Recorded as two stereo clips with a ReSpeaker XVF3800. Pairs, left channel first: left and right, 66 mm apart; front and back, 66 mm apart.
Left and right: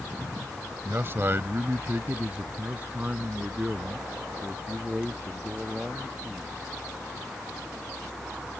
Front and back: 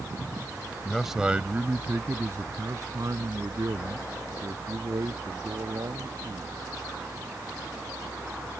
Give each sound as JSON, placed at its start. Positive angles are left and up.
{"t": 0.8, "sound": "a man speaking", "azimuth_deg": -80}